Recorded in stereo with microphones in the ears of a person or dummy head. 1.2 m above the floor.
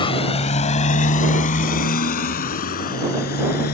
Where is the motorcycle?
30° left (ahead or behind); by 3.8 s 50° left (ahead or behind).